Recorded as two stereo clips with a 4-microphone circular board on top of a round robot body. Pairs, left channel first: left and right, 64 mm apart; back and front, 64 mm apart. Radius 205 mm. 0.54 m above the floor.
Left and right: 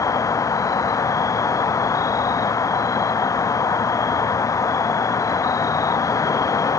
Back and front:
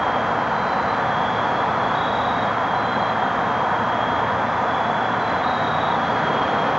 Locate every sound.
0.0 s an insect: 85° left